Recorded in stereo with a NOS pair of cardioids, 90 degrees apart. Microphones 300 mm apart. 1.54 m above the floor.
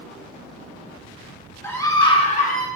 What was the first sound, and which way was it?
A scream, 10° left.